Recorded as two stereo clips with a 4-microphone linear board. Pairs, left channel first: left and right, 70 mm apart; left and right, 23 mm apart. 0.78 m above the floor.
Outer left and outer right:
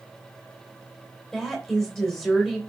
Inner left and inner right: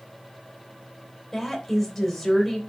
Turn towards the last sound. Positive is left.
turn(degrees=5)  # may be behind; listen again after turning